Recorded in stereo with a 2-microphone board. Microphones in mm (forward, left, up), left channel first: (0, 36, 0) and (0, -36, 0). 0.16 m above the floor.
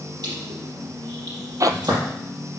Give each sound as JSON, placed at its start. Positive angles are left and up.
{"t": 0.2, "sound": "crushing", "side_deg": -70, "distance_m": 5.0}
{"t": 1.6, "sound": "a zipper", "side_deg": -55, "distance_m": 0.6}